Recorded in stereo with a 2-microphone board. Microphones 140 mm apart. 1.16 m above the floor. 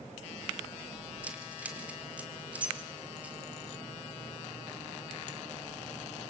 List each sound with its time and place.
1.2 s keys jangling: 10° right (ahead or behind), 2.5 m